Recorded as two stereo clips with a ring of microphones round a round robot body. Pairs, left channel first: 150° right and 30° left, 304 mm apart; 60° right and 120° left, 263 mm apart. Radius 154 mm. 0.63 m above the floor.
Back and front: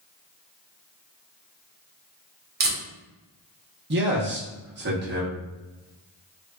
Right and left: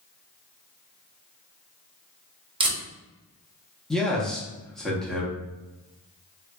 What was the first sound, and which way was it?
Tape being pulled, 60° left.